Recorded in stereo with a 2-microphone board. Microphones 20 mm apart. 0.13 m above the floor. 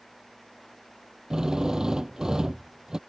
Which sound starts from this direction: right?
A drill, at 1.3 s.